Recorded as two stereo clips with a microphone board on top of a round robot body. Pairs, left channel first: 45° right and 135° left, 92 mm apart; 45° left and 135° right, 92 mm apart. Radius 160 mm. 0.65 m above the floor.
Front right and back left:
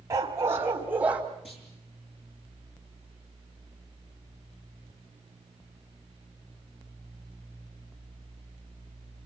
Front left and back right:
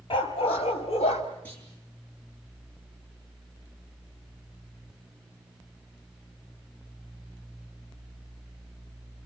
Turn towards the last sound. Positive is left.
turn(degrees=-30)